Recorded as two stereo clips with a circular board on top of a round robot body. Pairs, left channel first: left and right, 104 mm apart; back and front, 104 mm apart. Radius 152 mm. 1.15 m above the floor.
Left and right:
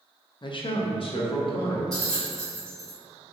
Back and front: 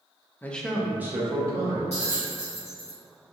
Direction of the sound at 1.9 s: 175° left.